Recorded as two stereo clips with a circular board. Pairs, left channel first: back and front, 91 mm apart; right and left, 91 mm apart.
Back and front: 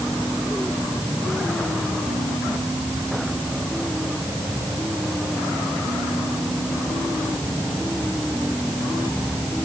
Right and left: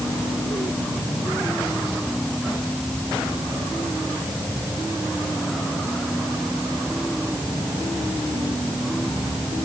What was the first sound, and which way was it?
Only background noise.